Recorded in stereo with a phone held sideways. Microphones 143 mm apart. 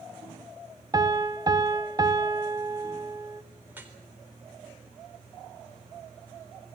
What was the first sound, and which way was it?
A piano, 30° right (ahead or behind).